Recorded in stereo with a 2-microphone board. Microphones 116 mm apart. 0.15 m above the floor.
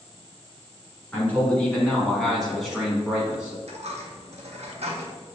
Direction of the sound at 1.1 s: 15° left (ahead or behind).